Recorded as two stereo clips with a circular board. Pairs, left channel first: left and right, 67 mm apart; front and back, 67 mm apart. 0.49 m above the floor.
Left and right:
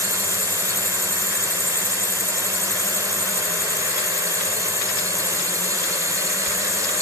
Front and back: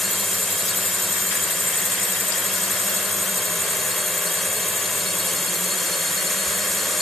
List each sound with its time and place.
0.0 s a drone: 90° right